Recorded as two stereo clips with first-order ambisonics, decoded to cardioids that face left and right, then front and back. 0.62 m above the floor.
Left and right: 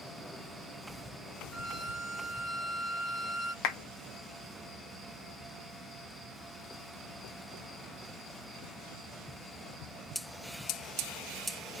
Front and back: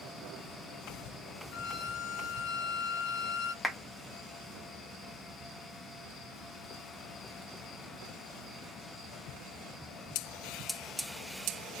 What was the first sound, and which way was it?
A violin, 30° left.